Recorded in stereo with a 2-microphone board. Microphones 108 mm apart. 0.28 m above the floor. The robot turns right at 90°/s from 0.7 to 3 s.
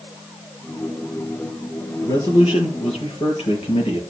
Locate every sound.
2.0 s a man speaking: 25° left, 5.5 m; by 4.0 s 115° left, 5.5 m